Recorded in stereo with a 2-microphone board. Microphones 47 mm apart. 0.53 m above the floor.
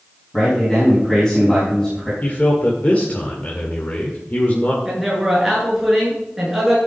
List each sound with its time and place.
0.3 s a man speaking: 15° left (ahead or behind), 5 m
2.2 s a man speaking: 35° left (ahead or behind), 1.9 m
4.8 s a man speaking: 5° right (ahead or behind), 7 m